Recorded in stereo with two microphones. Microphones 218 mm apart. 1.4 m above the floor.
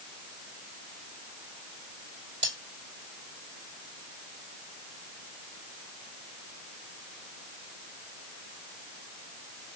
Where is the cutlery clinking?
30° right (ahead or behind), 3 m.